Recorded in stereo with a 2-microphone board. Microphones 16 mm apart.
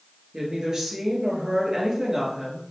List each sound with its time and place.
0.3 s a woman speaking: 40° right (ahead or behind), 1.8 m